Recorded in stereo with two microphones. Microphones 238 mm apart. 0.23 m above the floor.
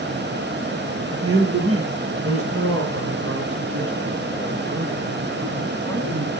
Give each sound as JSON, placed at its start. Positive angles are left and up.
{"t": 1.1, "sound": "a man speaking", "side_deg": -70, "distance_m": 6.0}